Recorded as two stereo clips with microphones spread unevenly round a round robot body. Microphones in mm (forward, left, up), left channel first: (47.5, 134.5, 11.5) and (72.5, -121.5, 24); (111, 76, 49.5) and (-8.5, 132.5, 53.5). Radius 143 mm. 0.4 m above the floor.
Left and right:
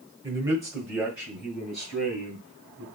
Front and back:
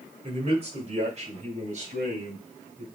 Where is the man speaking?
160° right, 1.4 m; by 2.9 s straight behind, 2.5 m.